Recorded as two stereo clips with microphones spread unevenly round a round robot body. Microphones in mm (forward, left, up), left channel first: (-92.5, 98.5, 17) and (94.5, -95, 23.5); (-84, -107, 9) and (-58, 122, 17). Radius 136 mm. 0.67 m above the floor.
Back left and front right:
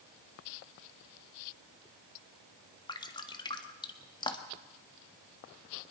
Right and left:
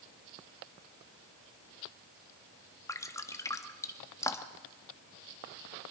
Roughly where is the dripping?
Behind.